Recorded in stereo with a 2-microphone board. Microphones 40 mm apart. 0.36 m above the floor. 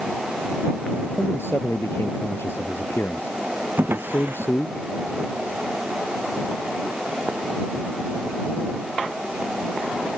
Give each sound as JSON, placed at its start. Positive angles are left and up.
{"t": 1.2, "sound": "a man speaking", "side_deg": 80}
{"t": 3.8, "sound": "a drawer", "side_deg": -65}